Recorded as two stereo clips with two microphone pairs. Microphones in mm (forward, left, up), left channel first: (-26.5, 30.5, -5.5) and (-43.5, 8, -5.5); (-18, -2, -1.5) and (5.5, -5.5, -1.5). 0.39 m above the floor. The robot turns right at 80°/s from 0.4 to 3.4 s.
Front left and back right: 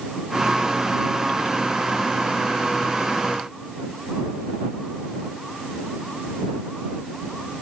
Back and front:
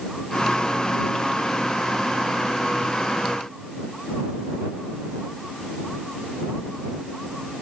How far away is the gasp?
No gasp in this recording.